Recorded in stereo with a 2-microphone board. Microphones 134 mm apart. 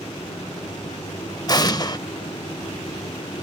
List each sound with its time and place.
1.5 s an explosion: 30° left (ahead or behind), 0.5 m